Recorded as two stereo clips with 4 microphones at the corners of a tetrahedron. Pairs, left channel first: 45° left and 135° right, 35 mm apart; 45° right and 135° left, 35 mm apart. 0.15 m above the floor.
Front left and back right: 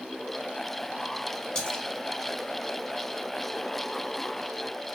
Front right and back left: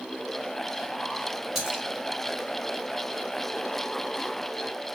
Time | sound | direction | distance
1.6 | a splash | 65° left | 0.9 m